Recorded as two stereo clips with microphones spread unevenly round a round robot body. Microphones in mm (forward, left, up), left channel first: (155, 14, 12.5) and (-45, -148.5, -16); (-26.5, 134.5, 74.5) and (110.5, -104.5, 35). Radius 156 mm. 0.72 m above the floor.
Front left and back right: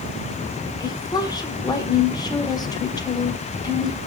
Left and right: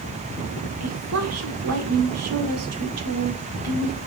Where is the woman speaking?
40° right, 2 m.